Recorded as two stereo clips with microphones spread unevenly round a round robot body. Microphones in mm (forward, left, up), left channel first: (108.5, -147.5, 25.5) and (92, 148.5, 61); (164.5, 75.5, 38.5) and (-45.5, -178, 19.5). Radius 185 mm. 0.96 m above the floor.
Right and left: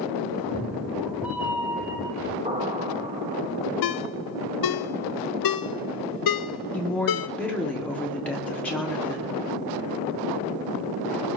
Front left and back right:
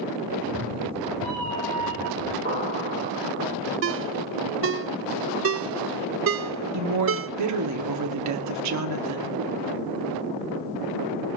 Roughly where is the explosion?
Behind.